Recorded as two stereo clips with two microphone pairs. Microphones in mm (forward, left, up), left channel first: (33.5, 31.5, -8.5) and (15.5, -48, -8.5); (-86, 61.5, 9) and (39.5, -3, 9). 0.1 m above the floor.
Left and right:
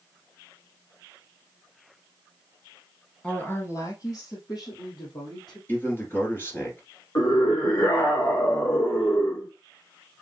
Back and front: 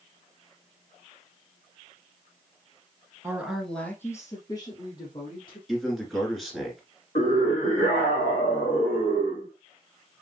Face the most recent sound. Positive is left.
turn(degrees=115)